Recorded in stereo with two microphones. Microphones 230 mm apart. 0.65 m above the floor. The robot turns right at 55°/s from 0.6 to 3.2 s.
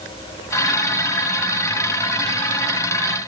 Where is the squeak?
I don't hear a squeak.